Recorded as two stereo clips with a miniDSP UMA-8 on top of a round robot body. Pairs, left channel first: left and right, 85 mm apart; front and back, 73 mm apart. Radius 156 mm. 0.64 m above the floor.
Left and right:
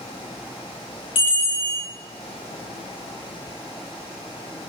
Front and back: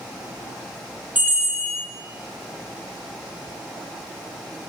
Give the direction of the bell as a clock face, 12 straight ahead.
8 o'clock.